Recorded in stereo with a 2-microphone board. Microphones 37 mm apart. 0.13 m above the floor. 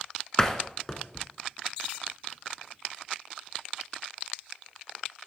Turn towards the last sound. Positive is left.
turn(degrees=15)  # may be behind; listen again after turning